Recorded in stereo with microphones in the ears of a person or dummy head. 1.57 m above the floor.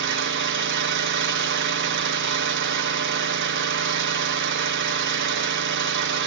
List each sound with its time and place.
0.0 s an engine running: 55° right (ahead or behind), 0.8 m